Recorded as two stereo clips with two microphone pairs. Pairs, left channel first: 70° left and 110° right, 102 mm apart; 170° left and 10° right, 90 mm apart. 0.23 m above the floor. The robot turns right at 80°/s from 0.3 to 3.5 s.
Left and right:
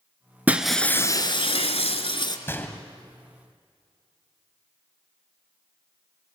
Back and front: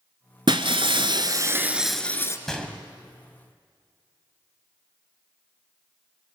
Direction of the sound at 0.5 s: 35° right.